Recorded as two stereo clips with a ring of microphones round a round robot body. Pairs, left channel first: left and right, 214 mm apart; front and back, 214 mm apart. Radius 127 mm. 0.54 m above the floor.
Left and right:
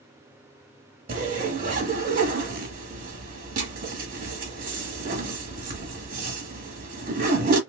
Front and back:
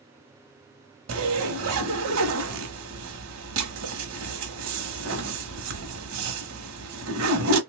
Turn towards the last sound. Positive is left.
turn(degrees=-150)